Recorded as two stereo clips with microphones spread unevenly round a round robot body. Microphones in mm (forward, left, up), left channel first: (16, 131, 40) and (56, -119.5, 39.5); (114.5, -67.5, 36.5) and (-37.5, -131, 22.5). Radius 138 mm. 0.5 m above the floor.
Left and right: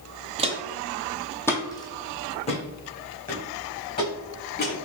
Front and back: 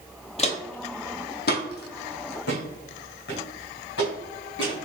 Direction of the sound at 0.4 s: 20° right.